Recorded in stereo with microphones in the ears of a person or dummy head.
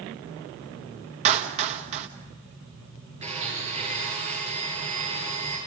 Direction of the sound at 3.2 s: 35° right (ahead or behind).